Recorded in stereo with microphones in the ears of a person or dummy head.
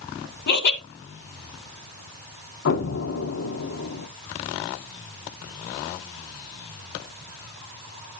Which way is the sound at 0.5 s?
55° left (ahead or behind).